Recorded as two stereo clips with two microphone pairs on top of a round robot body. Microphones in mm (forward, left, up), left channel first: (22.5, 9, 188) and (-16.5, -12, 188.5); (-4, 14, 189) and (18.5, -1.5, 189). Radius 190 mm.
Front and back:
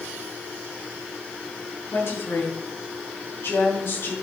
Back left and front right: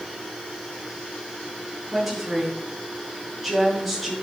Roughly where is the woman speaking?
Ahead left.